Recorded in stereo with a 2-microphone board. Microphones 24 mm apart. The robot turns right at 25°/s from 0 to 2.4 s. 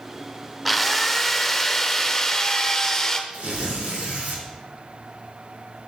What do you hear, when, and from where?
0.7 s a drill: centre (ahead or behind), 1.1 m; by 3.2 s 20° left (ahead or behind), 1.1 m
3.3 s tearing paper: 75° right (ahead or behind), 3.5 m